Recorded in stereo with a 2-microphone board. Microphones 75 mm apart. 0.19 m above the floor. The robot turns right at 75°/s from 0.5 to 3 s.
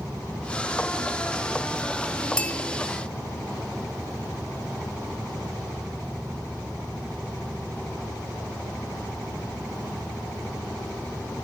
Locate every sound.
2.4 s a bell: 5° left (ahead or behind), 0.9 m; by 2.5 s 20° left (ahead or behind), 0.9 m